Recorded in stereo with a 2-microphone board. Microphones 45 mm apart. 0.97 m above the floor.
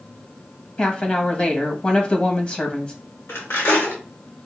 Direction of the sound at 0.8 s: 25° left (ahead or behind).